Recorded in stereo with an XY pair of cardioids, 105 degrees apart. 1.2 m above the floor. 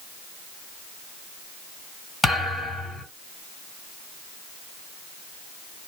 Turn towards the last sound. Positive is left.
turn(degrees=20)